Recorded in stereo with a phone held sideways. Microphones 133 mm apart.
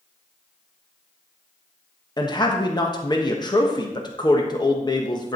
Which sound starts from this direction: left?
A man speaking, at 2.2 s.